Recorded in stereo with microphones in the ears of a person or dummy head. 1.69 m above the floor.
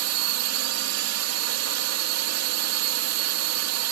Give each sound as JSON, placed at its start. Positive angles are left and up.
{"t": 0.0, "sound": "a drone", "side_deg": -80}